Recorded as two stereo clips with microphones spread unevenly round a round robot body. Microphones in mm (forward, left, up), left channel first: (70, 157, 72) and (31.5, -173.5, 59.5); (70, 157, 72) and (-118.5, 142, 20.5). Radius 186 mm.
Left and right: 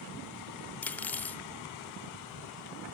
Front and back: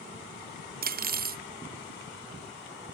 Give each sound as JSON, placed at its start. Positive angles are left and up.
{"t": 0.8, "sound": "cutlery clinking", "azimuth_deg": 170, "distance_m": 0.6}